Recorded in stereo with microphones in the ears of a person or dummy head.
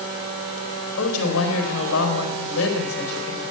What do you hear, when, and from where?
1.0 s a woman speaking: 80° left, 4 m